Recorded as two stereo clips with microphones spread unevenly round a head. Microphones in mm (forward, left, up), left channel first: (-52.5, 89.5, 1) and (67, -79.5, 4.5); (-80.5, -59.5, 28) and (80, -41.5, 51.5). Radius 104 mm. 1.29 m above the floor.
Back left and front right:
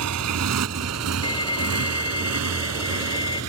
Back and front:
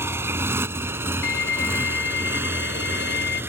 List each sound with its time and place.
0.0 s a motorcycle: 65° right; by 3.5 s 70° right
1.2 s a violin: 165° right